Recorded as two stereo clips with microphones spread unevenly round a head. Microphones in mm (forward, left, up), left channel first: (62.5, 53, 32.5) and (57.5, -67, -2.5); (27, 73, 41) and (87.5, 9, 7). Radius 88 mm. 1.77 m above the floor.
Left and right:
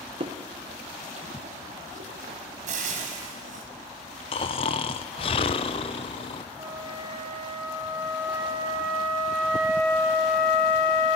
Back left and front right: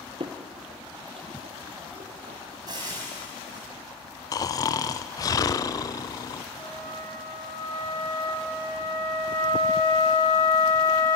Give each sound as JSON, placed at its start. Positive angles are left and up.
{"t": 0.2, "sound": "footsteps", "azimuth_deg": -70, "distance_m": 1.9}
{"t": 2.7, "sound": "frying", "azimuth_deg": -120, "distance_m": 2.0}
{"t": 4.3, "sound": "snoring", "azimuth_deg": 120, "distance_m": 0.6}
{"t": 6.6, "sound": "a flute", "azimuth_deg": -170, "distance_m": 4.0}